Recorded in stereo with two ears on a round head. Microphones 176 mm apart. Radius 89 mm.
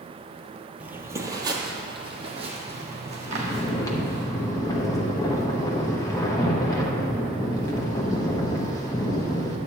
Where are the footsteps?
5° right (ahead or behind), 1.0 m; by 4.2 s 40° right (ahead or behind), 3 m.